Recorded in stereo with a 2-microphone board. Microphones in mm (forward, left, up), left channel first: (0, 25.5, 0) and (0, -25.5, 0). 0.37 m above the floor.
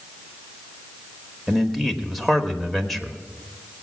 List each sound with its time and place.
1.5 s a man speaking: centre (ahead or behind), 1.1 m